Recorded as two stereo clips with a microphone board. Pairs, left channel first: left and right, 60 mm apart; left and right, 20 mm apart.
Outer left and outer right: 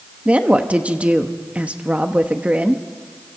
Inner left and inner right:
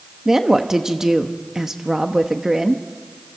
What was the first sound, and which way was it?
A woman speaking, 20° right (ahead or behind).